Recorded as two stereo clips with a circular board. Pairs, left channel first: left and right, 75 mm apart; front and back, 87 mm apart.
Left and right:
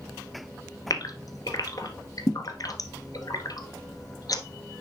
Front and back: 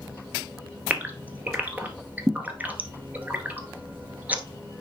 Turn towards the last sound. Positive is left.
turn(degrees=110)